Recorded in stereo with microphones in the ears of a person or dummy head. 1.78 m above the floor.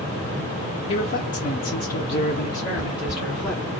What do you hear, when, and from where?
0.9 s a man speaking: 35° left (ahead or behind), 0.7 m; by 3.6 s 15° left (ahead or behind), 1.4 m
2.8 s footsteps: 5° left (ahead or behind), 2.0 m